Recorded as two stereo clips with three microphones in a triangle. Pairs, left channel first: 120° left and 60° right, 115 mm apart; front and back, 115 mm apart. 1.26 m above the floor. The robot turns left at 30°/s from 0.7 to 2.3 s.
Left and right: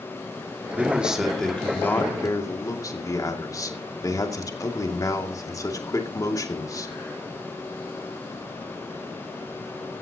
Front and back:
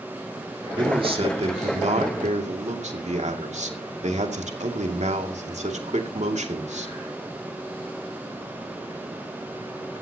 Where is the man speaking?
135° right, 2.5 m; by 6.9 s straight behind, 2.5 m.